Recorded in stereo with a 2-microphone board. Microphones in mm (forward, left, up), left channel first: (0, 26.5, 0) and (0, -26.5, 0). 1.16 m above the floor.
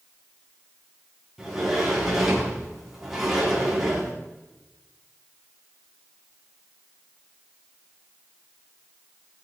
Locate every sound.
1.4 s a sliding door: 10° right (ahead or behind), 4.5 m